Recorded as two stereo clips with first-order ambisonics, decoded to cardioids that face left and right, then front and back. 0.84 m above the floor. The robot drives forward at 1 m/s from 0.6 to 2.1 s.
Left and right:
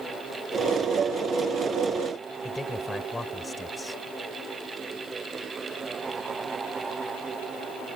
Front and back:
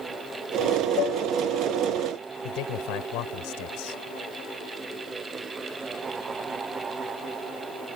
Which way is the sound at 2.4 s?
10° left.